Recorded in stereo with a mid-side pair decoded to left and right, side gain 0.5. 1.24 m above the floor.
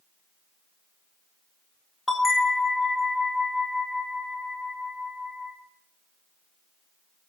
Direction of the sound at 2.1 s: 15° left.